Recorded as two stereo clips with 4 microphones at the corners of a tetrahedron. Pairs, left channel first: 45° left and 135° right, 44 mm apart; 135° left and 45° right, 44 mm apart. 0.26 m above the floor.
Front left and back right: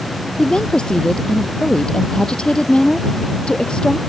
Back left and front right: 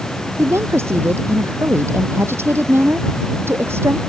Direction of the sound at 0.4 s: 25° right.